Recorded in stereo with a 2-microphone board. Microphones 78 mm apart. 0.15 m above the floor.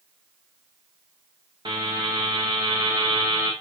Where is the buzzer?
70° right (ahead or behind), 6 m.